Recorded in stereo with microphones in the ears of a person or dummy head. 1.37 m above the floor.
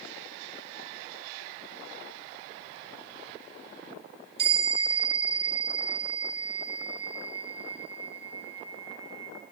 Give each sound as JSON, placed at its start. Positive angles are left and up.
{"t": 4.4, "sound": "a bell", "side_deg": -70, "distance_m": 7.5}